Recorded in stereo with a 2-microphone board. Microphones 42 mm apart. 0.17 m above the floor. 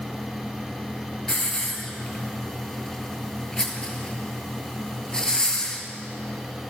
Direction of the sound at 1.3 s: 15° left (ahead or behind).